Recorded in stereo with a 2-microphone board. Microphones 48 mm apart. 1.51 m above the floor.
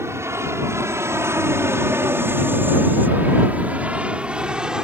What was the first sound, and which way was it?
An aircraft, 75° right (ahead or behind).